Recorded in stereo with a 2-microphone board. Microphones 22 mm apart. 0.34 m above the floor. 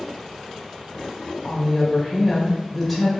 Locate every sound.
1.4 s a woman speaking: 5° right (ahead or behind), 1.0 m